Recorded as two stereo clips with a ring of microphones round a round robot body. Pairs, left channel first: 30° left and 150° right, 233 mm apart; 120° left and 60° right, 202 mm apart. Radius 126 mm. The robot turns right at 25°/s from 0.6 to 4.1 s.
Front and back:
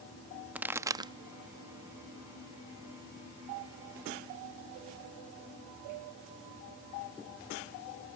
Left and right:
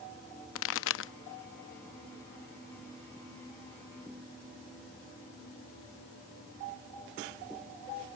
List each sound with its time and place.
0.6 s a pop: 125° left; by 1.1 s 140° left